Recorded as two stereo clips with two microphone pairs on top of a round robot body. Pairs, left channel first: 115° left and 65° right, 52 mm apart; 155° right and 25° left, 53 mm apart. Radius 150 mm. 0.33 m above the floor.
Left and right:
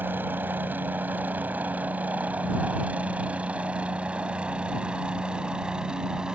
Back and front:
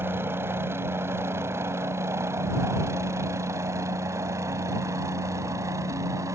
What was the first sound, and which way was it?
A helicopter, 20° right.